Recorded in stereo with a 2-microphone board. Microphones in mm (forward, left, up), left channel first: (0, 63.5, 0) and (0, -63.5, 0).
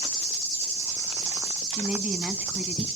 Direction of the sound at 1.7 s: 10° right (ahead or behind).